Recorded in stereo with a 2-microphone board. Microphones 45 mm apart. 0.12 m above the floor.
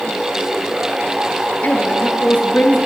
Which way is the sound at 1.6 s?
40° left (ahead or behind).